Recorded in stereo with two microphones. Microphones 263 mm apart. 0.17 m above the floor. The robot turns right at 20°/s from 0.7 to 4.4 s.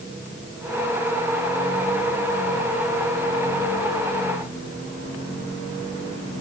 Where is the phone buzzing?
No phone buzzing in this recording.